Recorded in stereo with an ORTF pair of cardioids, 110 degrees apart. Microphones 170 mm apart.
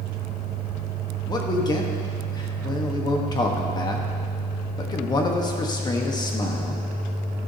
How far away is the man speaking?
About 1.3 m.